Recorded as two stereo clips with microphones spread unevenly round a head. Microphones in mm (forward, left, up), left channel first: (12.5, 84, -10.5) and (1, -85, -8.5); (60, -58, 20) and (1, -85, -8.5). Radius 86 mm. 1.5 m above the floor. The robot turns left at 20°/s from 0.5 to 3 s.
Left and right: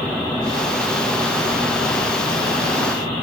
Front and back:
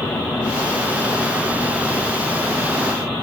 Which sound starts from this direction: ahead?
A helicopter, at 0.0 s.